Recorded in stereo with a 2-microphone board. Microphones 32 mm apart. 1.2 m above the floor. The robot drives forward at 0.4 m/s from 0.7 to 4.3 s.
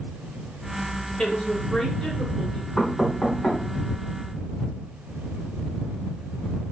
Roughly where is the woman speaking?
Left.